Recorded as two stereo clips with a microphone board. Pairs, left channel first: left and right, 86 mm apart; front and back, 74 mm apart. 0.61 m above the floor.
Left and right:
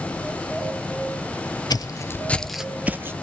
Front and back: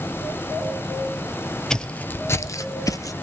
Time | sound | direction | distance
1.7 | footsteps | 80° left | 0.8 m